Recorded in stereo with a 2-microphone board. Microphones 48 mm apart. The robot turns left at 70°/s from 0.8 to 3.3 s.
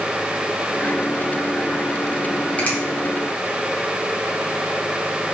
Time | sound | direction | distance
2.6 | a finger snap | 30° left (ahead or behind) | 2.5 m